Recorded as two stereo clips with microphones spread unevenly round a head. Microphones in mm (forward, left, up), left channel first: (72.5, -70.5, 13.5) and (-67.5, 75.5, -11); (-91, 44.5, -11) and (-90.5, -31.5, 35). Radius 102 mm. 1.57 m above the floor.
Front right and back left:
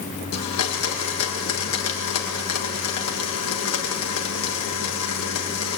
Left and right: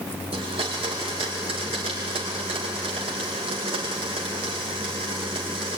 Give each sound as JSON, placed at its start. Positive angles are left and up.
{"t": 0.3, "sound": "a blender", "azimuth_deg": -60, "distance_m": 2.0}